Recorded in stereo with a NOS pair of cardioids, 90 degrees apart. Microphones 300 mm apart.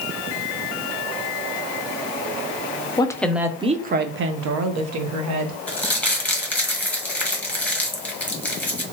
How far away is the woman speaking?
About 0.6 m.